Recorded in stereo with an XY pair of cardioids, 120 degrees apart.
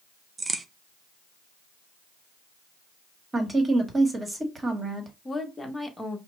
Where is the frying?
I don't hear frying.